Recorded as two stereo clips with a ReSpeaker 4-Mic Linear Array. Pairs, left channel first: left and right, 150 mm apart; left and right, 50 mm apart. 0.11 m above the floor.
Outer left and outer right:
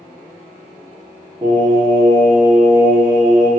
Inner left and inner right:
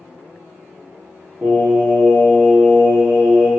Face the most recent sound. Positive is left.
turn(degrees=-30)  # may be behind; listen again after turning